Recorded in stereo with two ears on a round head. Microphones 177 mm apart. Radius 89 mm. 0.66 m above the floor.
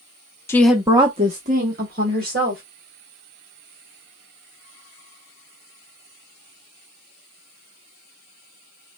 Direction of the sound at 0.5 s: 15° left (ahead or behind).